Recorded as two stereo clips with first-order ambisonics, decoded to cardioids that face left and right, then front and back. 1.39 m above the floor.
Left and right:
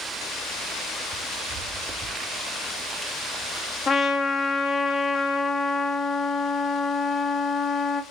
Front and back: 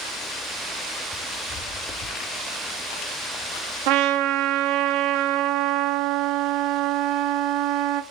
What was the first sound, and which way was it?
Footsteps, 70° right.